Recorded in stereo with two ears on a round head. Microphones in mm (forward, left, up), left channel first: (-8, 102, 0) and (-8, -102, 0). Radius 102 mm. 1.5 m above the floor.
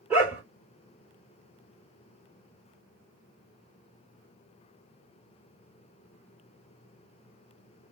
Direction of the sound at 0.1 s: 5° right (ahead or behind).